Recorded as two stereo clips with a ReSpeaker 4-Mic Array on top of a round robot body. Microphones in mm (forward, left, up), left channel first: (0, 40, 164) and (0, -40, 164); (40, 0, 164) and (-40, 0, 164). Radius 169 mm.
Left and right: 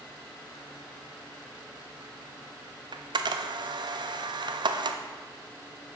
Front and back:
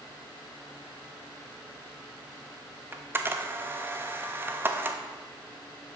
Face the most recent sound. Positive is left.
turn(degrees=-115)